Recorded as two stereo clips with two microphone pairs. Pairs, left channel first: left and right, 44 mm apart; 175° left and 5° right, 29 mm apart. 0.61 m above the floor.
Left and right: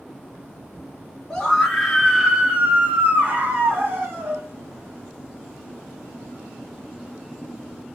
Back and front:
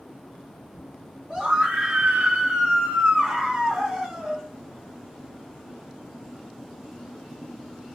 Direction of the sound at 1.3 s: 20° left.